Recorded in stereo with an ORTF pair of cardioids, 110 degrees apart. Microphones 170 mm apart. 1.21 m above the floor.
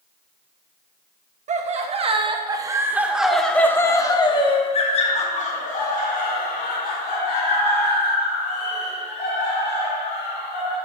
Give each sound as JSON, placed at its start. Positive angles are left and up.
{"t": 1.5, "sound": "laughter", "azimuth_deg": -45, "distance_m": 1.4}